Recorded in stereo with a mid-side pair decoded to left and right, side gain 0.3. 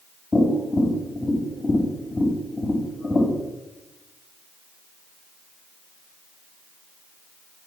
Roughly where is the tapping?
Ahead left.